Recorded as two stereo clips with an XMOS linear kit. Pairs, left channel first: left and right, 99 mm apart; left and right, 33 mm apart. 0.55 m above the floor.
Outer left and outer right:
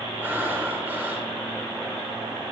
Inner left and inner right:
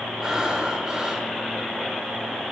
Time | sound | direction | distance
0.2 | breathing | 20° right (ahead or behind) | 0.9 m